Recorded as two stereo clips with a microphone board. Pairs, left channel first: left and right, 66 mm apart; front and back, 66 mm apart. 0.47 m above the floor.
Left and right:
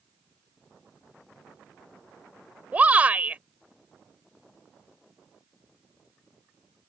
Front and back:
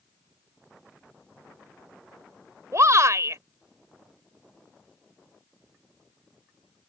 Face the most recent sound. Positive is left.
turn(degrees=-155)